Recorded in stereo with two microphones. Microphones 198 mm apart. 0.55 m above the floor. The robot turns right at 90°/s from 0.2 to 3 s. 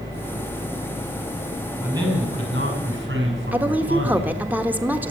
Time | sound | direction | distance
1.8 | a man speaking | 175° right | 6 m
3.5 | a woman speaking | 10° right (ahead or behind) | 1.2 m